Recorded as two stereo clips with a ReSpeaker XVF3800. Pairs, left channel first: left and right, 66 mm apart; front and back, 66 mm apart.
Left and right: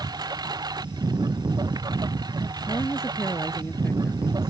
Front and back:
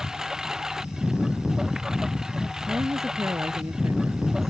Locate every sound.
0.0 s a lawn mower: 100° right
2.7 s a woman speaking: 140° left